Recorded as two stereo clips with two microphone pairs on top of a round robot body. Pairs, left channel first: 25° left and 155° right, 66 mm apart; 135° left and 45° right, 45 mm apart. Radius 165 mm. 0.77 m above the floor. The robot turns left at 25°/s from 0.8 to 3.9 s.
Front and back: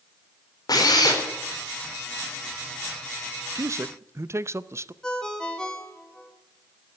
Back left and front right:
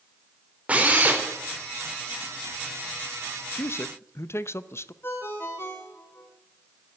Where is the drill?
10° left, 4 m; by 1.2 s straight ahead, 4 m.